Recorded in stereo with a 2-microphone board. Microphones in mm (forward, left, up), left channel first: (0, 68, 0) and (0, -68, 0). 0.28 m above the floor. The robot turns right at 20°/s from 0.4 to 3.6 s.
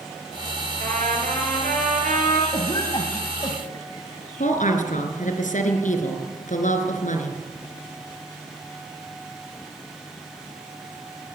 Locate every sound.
0.8 s a trumpet: 110° right, 6 m; by 2.4 s 80° right, 6 m
2.5 s a cough: 40° left (ahead or behind), 1.9 m; by 4.2 s 30° left (ahead or behind), 1.9 m
4.4 s a woman speaking: 70° left (ahead or behind), 3.5 m